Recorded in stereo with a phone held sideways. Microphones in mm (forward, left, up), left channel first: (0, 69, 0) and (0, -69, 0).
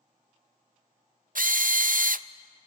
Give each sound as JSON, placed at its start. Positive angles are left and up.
{"t": 1.4, "sound": "a drill", "side_deg": -70, "distance_m": 0.5}